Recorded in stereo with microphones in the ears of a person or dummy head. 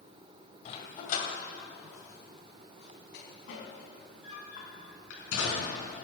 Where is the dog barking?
50° left (ahead or behind), 1.8 m; by 5.9 s 80° left, 4.5 m.